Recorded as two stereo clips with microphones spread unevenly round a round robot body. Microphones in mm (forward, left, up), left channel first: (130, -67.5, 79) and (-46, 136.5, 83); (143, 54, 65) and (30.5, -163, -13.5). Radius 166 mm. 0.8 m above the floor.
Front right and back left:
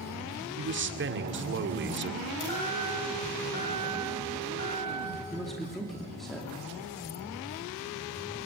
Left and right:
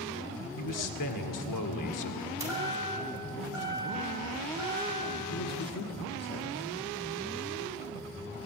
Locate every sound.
0.6 s a man speaking: 85° left, 2.5 m
2.4 s a chime: 40° right, 8 m
5.3 s a man speaking: 40° left, 2.5 m